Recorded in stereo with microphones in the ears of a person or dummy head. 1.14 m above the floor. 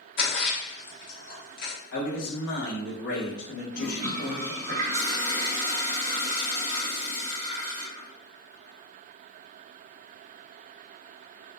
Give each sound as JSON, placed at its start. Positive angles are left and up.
{"t": 0.2, "sound": "a splash", "side_deg": 60, "distance_m": 1.1}
{"t": 1.9, "sound": "a man speaking", "side_deg": 65, "distance_m": 1.2}
{"t": 3.7, "sound": "a toilet flushing", "side_deg": -35, "distance_m": 0.6}